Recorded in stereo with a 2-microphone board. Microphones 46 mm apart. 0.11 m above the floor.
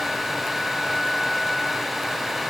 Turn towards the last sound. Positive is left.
No sound to turn to.